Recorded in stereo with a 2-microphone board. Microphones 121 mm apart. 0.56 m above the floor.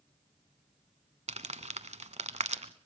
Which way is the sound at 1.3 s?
75° right (ahead or behind).